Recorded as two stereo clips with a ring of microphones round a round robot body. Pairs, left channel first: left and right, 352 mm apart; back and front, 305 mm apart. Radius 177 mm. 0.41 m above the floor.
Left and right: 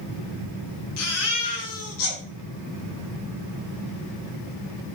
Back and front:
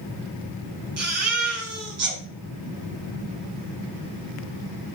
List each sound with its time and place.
1.0 s a baby crying: 40° left, 5 m